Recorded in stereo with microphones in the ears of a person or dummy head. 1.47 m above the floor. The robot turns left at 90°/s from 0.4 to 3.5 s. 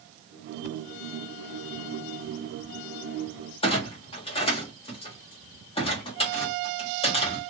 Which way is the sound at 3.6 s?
25° left (ahead or behind).